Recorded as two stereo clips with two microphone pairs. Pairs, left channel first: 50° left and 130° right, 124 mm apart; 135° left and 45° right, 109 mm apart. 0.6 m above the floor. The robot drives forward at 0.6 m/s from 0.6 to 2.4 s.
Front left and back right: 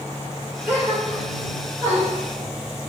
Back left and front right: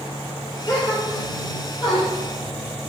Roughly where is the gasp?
Behind.